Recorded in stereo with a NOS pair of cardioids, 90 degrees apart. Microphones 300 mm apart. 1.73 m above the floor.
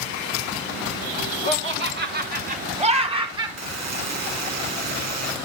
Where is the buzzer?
65° right, 1.9 m.